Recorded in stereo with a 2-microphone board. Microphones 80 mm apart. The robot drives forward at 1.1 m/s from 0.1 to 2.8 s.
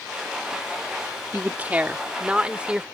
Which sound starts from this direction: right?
A woman speaking, at 1.3 s.